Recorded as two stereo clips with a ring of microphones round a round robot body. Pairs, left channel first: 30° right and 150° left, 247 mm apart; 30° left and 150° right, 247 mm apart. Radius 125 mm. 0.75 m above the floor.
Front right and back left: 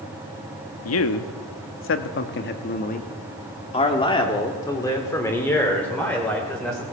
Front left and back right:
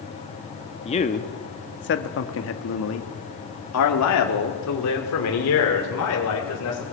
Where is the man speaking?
35° right, 1.3 m; by 6.8 s 55° left, 3 m.